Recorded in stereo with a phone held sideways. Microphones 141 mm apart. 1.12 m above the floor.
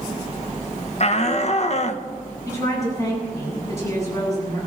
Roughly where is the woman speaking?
Left.